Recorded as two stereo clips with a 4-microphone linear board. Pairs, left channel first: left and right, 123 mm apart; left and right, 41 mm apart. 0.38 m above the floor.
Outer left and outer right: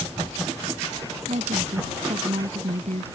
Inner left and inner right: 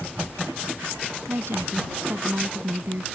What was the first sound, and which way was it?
A woman speaking, 70° right (ahead or behind).